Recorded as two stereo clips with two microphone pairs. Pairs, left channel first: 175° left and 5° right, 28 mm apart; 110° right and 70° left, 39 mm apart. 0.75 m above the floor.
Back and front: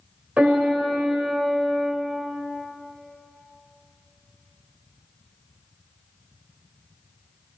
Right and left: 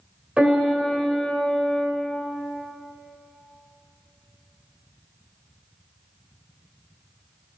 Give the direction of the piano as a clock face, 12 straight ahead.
12 o'clock.